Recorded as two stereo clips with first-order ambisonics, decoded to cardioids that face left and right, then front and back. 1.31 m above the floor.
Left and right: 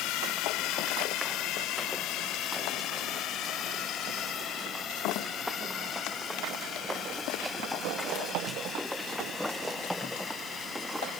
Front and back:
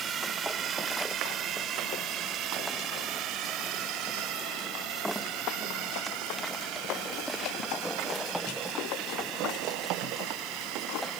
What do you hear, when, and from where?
0.0 s a drone: 120° left; by 11.2 s 160° left